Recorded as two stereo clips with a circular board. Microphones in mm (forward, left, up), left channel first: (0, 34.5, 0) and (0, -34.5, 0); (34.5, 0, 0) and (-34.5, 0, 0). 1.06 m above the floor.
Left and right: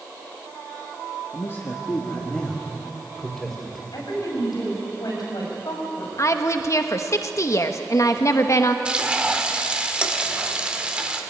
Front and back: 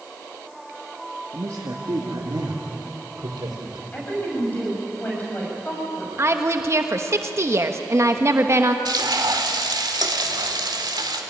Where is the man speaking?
135° left, 1.9 m; by 3.8 s straight behind, 4 m.